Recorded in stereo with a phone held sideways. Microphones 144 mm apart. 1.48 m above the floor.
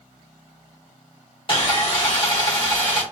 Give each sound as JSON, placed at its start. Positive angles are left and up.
{"t": 1.5, "sound": "sawing", "side_deg": 35, "distance_m": 1.2}